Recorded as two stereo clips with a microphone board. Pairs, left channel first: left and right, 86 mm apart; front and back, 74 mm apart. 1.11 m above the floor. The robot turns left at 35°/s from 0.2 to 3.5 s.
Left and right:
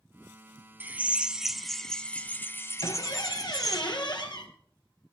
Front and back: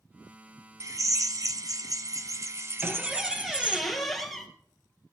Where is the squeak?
110° left, 2.0 m; by 4.5 s 85° left, 2.0 m.